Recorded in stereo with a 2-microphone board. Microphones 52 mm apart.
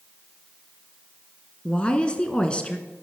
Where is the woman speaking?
20° left (ahead or behind), 1.1 m.